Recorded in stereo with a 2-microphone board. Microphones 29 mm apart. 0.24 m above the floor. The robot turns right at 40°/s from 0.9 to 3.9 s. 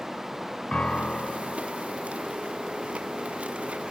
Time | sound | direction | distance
0.7 | a piano | 40° left (ahead or behind) | 1.9 m